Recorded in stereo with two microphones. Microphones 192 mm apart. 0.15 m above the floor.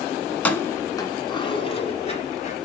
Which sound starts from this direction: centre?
Keys jangling, at 0.3 s.